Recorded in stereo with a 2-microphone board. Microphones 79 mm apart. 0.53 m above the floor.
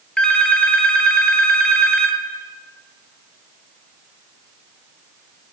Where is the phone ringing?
15° left (ahead or behind), 1.0 m.